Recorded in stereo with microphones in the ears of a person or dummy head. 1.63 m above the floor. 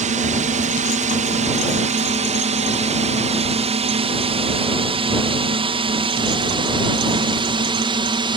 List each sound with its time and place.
0.0 s a drone: 40° right (ahead or behind); by 8.4 s 25° right (ahead or behind)